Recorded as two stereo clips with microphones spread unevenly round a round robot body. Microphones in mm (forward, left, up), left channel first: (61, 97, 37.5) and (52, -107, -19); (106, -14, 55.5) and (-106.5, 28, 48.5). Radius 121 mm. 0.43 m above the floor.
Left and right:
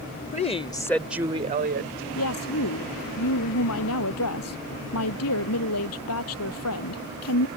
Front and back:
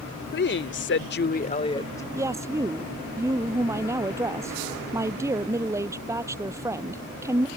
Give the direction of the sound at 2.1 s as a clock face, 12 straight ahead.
9 o'clock.